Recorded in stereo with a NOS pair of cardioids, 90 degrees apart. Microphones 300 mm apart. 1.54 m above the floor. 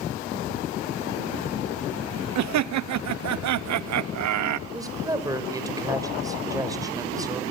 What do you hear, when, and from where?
2.4 s laughter: 70° right, 1.1 m
4.7 s a woman speaking: 10° right, 5.5 m